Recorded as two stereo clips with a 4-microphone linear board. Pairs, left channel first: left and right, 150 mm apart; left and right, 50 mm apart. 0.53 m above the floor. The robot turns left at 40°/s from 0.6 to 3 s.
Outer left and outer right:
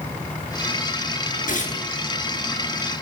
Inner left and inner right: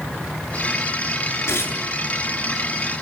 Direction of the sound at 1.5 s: 60° left (ahead or behind).